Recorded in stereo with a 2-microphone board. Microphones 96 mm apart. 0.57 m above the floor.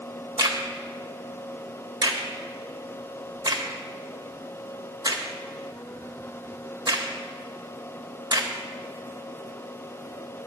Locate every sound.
0.4 s a crack: 55° right (ahead or behind), 1.1 m